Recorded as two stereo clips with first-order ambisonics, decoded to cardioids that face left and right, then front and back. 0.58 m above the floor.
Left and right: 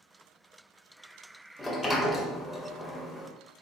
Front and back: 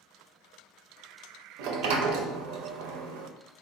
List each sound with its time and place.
1.6 s a sliding door: 175° left, 0.5 m